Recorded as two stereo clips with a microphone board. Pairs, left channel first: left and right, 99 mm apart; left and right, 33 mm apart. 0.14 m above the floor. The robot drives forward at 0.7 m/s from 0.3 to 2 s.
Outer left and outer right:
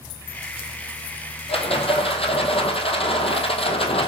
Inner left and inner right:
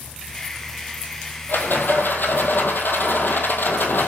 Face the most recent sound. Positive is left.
turn(degrees=75)  # may be behind; listen again after turning